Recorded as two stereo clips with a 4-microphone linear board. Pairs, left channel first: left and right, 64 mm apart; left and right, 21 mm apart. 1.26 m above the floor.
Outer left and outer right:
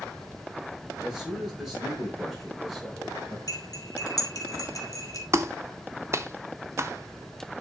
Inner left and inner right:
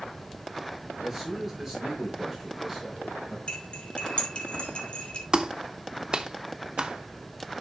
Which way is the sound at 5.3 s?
45° right (ahead or behind).